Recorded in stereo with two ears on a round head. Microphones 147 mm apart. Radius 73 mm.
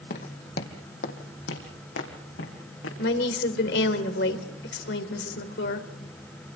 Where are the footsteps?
55° left (ahead or behind), 2.5 m; by 2.9 s 80° left, 4.5 m.